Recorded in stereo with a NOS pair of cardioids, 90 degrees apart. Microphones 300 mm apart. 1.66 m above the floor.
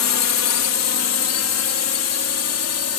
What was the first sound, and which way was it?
A drone, 60° left.